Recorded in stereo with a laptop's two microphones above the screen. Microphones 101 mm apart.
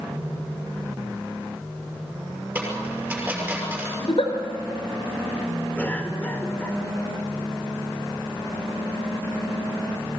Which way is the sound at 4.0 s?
75° left (ahead or behind).